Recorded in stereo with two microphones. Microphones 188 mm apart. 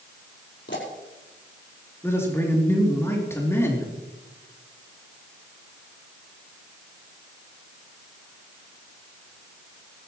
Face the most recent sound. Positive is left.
turn(degrees=15)  # may be behind; listen again after turning